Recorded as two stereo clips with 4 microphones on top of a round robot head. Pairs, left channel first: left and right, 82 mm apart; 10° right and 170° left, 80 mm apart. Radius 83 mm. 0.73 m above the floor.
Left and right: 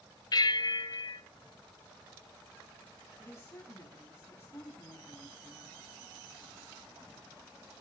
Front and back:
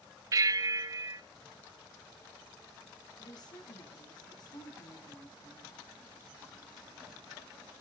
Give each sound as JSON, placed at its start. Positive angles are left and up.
{"t": 0.3, "sound": "a bell", "azimuth_deg": 125, "distance_m": 0.7}
{"t": 3.2, "sound": "a woman speaking", "azimuth_deg": 25, "distance_m": 6.5}